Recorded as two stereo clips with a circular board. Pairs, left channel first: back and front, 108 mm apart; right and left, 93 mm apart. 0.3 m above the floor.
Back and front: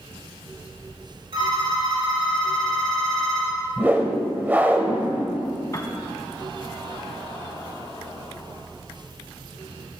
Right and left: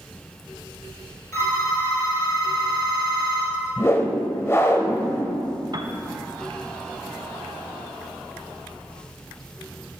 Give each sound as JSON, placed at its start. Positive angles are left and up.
{"t": 1.3, "sound": "a phone ringing", "azimuth_deg": -30, "distance_m": 4.5}
{"t": 3.8, "sound": "a whoosh", "azimuth_deg": -60, "distance_m": 1.1}
{"t": 5.7, "sound": "a piano", "azimuth_deg": 125, "distance_m": 0.8}